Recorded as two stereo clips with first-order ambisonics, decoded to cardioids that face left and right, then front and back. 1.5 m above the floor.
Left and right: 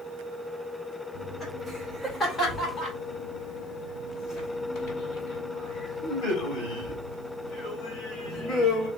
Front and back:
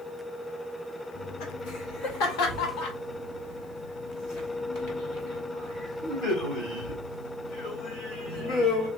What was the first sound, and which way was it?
Laughter, straight ahead.